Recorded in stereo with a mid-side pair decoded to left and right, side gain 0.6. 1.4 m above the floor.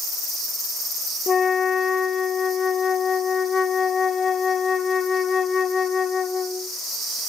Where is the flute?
30° left, 0.7 m.